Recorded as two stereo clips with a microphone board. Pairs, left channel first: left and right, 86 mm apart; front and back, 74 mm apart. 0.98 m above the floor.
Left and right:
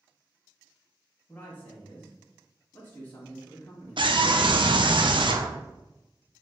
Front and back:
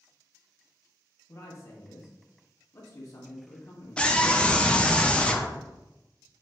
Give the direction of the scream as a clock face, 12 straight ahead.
3 o'clock.